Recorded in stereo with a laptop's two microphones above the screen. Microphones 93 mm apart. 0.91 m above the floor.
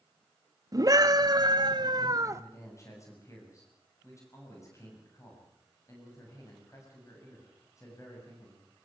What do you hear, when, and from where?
0.7 s a scream: 40° right (ahead or behind), 1.5 m; by 2.4 s 30° right (ahead or behind), 0.7 m
2.3 s a man speaking: 35° left (ahead or behind), 7.5 m